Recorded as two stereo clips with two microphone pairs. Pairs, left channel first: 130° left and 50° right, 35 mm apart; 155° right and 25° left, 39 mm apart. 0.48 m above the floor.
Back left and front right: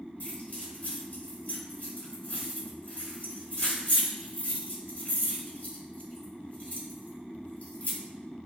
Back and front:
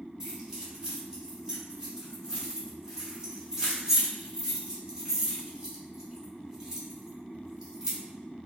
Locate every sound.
0.2 s keys jangling: 95° left, 1.6 m